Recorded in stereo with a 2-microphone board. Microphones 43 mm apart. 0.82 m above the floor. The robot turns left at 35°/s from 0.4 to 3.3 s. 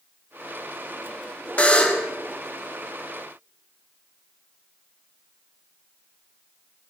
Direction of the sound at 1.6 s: 30° left (ahead or behind).